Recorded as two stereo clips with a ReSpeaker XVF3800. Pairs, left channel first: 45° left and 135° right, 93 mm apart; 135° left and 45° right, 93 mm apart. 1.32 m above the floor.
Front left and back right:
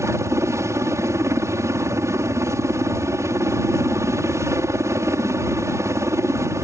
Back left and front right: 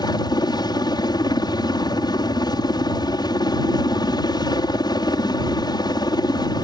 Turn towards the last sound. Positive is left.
turn(degrees=170)